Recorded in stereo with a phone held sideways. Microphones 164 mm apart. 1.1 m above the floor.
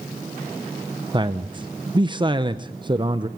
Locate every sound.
1.1 s a man speaking: 30° right (ahead or behind), 0.8 m